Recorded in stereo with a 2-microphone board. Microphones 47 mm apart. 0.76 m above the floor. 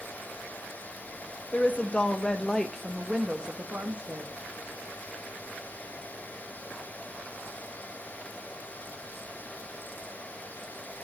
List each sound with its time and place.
1.5 s a woman speaking: 40° left (ahead or behind), 1.3 m; by 4.3 s 40° right (ahead or behind), 1.2 m